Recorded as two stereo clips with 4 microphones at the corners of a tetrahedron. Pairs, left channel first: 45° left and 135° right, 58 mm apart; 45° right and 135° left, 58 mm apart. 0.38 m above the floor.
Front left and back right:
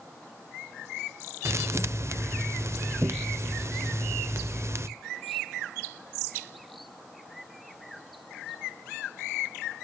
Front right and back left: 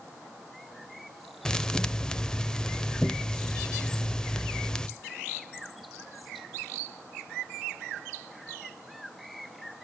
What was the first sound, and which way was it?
A thud, 115° right.